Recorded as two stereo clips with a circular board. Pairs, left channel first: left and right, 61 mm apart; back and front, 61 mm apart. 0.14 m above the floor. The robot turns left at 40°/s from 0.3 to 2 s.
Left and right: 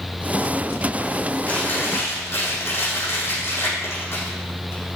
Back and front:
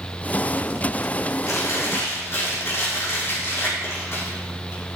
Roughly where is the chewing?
Behind left.